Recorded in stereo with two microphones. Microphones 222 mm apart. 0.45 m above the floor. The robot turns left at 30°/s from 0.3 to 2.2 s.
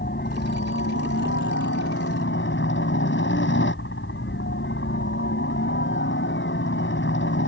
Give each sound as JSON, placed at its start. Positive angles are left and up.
{"t": 0.0, "sound": "a helicopter", "azimuth_deg": 125}